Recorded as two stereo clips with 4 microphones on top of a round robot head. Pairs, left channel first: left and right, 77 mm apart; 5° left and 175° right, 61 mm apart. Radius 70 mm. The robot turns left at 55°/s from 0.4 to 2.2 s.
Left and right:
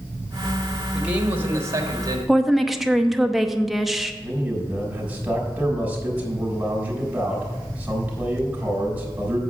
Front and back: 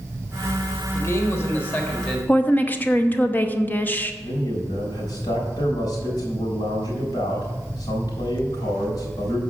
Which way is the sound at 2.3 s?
Straight ahead.